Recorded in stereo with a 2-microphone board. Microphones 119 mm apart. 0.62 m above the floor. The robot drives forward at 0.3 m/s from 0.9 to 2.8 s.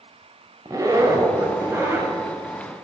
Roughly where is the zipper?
Right.